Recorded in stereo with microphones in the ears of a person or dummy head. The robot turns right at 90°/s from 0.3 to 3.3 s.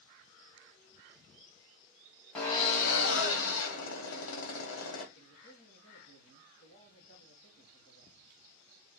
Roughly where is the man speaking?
Left.